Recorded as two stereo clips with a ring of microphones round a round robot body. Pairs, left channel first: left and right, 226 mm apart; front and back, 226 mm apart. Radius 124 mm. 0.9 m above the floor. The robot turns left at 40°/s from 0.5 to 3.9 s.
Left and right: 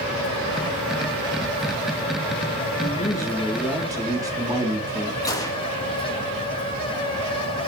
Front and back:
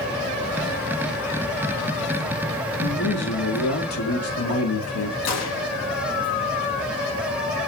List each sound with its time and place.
2.8 s a man speaking: 30° left, 2 m; by 5.2 s 15° right, 2 m
5.2 s a gunshot: 15° left, 1.7 m